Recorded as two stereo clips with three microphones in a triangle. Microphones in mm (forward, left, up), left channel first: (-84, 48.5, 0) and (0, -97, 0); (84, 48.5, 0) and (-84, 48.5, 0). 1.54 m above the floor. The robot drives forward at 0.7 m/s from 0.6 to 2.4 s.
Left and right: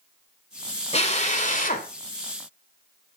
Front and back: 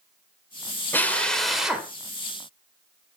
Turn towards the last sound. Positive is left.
turn(degrees=110)